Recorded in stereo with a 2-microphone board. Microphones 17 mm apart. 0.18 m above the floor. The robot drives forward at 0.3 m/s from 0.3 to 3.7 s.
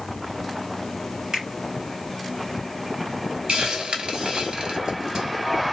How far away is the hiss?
About 0.9 m.